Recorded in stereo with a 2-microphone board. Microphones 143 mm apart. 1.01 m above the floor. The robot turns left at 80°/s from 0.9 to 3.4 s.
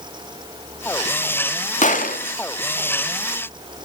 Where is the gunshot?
60° left (ahead or behind), 1.7 m; by 3.9 s 5° right (ahead or behind), 1.7 m.